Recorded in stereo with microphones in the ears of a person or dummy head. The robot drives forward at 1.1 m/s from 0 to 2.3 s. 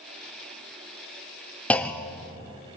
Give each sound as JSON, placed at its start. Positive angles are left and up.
{"t": 1.7, "sound": "a clunk", "side_deg": 5, "distance_m": 0.8}